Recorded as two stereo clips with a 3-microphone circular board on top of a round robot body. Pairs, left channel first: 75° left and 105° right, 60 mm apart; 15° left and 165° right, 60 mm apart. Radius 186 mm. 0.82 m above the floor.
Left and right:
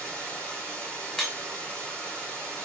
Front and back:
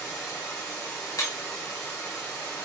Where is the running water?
5° left, 3 m.